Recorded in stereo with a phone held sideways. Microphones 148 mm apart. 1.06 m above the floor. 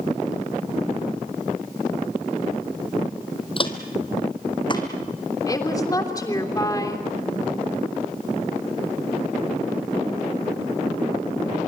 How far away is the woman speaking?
About 3 m.